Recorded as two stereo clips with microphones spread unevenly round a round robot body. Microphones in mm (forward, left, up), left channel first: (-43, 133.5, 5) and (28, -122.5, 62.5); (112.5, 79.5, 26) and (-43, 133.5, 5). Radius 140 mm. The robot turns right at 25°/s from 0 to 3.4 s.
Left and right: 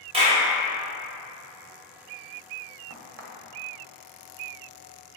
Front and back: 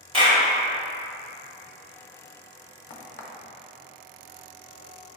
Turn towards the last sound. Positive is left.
turn(degrees=-15)